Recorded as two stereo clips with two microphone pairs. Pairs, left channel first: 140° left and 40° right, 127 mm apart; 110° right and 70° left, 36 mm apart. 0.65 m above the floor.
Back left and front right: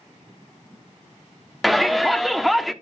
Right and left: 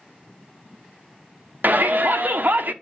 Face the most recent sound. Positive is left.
turn(degrees=55)